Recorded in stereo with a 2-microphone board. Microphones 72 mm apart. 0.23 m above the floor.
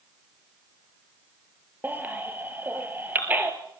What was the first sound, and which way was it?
A baby crying, 25° right (ahead or behind).